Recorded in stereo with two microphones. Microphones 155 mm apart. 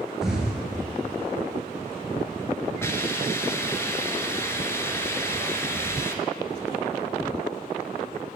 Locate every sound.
0.2 s an explosion: 5° right (ahead or behind), 1.8 m
2.8 s a hiss: 15° left (ahead or behind), 0.7 m